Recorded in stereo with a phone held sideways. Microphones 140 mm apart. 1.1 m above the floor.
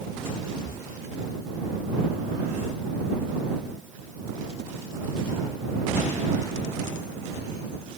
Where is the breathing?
70° right (ahead or behind).